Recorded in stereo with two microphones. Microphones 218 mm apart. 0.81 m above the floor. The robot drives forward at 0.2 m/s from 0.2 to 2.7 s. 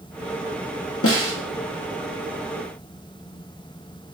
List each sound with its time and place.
1.0 s a snare drum: 90° left, 0.6 m; by 1.3 s 85° left, 0.6 m